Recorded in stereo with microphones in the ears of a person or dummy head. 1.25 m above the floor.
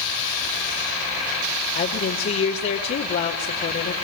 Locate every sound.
1.8 s a woman speaking: 55° left (ahead or behind), 2.5 m